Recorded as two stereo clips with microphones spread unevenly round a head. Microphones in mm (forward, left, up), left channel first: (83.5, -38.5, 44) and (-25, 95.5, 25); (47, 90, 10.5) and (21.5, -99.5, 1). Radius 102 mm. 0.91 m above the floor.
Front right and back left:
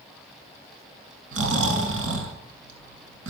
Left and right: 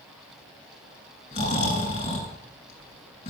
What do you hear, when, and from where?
1.3 s snoring: 140° left, 6.5 m